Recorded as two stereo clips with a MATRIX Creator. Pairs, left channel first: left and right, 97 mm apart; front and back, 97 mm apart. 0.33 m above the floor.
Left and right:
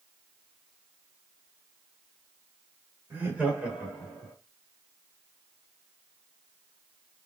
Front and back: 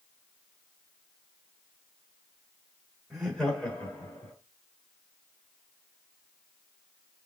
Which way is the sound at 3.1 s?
90° right.